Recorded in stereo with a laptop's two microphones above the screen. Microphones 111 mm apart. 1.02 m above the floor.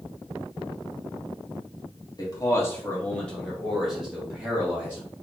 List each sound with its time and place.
2.2 s a man speaking: 35° left (ahead or behind), 1.2 m; by 5.0 s 15° right (ahead or behind), 2 m